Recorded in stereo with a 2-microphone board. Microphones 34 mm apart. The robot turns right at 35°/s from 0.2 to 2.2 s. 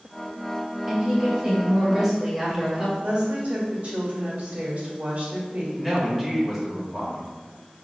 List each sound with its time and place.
0.9 s a woman speaking: 20° right (ahead or behind), 1.1 m; by 2.9 s 10° right (ahead or behind), 1.1 m
3.0 s a woman speaking: 45° right (ahead or behind), 1.2 m
5.8 s a woman speaking: centre (ahead or behind), 1.4 m